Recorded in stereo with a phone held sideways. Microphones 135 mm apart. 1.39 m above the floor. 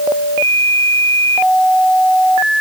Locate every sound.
Only background noise.